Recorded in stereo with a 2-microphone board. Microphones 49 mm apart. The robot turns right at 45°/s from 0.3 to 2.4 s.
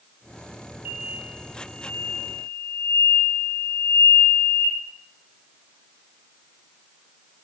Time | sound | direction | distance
0.8 | an explosion | 20° right | 2 m